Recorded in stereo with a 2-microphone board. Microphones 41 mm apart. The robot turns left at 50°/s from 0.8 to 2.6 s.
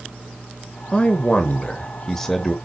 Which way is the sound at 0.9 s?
25° left (ahead or behind).